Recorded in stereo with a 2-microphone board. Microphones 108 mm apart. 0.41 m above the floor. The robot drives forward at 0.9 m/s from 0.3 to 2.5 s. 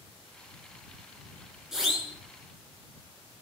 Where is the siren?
5° right (ahead or behind), 8.5 m.